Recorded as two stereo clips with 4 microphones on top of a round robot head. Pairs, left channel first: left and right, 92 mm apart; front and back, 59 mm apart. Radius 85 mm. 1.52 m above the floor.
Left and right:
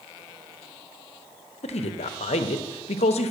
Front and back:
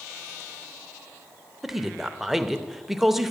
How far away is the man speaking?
About 0.8 m.